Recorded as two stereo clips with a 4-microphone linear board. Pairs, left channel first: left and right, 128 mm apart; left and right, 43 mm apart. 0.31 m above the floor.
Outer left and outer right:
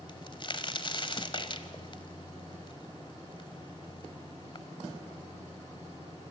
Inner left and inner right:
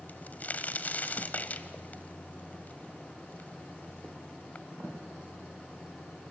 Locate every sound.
0.1 s a crack: 45° left (ahead or behind), 1.2 m